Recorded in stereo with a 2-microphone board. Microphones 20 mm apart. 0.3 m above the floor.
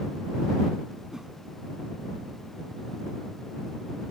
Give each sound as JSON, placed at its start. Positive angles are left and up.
{"t": 1.1, "sound": "a whoosh", "side_deg": -30}